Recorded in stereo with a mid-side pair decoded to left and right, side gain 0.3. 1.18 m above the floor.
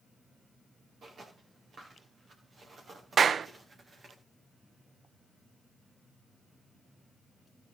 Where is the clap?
65° right, 0.6 m.